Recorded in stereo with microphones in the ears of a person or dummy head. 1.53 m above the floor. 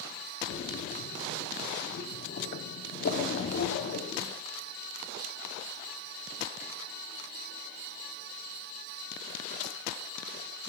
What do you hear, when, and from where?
0.5 s a splash: 55° left (ahead or behind), 1.0 m